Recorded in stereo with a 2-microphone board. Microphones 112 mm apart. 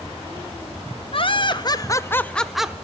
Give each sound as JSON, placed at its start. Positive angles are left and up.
{"t": 1.1, "sound": "laughter", "side_deg": 55, "distance_m": 0.9}